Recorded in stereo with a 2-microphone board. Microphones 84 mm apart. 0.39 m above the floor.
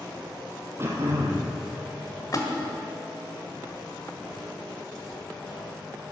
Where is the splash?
40° left (ahead or behind), 1.8 m.